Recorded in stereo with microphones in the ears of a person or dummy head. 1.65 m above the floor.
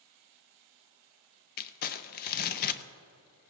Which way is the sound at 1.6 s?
50° left (ahead or behind).